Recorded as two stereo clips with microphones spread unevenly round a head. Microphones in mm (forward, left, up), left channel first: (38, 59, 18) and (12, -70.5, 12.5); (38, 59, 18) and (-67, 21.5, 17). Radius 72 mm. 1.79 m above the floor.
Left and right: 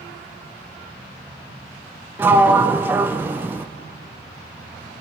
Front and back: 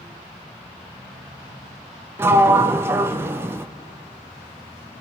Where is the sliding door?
155° right, 0.6 m.